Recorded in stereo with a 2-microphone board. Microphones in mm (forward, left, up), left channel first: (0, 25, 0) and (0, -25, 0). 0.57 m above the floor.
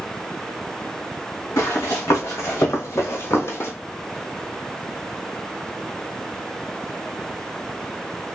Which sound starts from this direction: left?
Running footsteps, at 1.6 s.